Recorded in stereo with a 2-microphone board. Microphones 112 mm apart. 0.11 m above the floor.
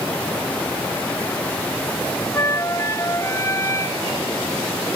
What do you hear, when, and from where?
2.3 s a flute: 30° left (ahead or behind)